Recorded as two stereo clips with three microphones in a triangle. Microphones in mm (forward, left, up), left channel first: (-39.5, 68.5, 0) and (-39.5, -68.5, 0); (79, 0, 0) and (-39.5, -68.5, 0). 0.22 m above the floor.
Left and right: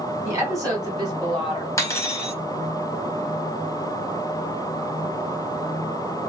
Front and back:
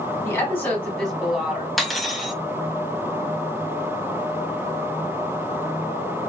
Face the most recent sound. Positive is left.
turn(degrees=120)